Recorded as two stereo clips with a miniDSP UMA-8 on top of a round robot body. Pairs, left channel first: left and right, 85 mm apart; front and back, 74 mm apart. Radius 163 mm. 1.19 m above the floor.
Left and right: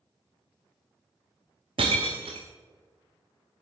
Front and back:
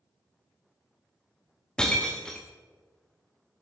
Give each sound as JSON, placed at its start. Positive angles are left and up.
{"t": 1.8, "sound": "breaking glass", "azimuth_deg": -80, "distance_m": 0.7}